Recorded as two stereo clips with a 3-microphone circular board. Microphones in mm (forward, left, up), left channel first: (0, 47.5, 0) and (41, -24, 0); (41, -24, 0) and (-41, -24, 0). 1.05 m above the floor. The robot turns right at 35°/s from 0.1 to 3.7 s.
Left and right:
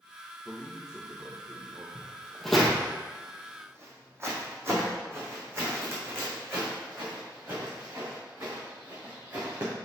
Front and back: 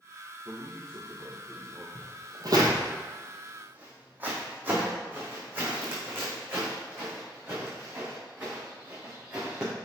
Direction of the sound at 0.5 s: 155° right.